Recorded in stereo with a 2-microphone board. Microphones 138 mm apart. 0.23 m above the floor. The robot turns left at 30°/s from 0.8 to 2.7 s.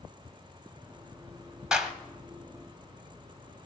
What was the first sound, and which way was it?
A clap, 5° right (ahead or behind).